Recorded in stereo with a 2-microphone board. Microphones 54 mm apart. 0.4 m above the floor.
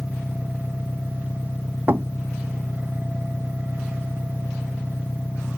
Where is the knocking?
40° right (ahead or behind).